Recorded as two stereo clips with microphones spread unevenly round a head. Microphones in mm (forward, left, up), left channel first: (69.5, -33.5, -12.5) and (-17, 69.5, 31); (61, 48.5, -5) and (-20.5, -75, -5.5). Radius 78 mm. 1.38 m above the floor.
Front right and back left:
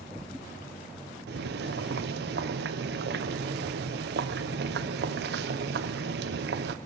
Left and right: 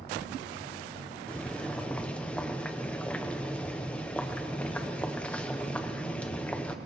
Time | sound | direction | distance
1.3 | boiling | 140° left | 0.9 m